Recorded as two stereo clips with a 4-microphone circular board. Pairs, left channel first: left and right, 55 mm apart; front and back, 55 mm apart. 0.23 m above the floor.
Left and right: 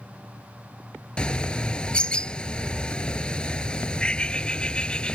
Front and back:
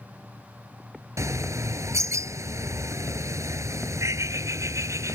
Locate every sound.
1.2 s a bird: 160° left